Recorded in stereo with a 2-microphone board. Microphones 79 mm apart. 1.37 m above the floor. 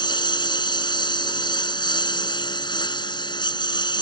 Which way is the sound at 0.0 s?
70° left (ahead or behind).